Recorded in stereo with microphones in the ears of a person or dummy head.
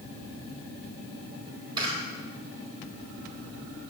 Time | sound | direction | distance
1.8 | a camera shutter | 25° right (ahead or behind) | 4.5 m